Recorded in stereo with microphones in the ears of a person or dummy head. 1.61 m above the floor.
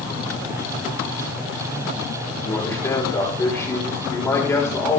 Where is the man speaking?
20° left (ahead or behind), 4.5 m.